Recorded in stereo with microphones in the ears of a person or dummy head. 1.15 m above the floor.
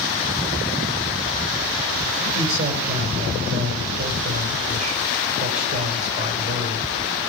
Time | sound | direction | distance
2.3 | a man speaking | 45° right (ahead or behind) | 3.5 m